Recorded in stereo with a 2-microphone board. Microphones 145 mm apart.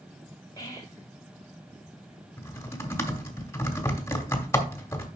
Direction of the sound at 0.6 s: 25° left (ahead or behind).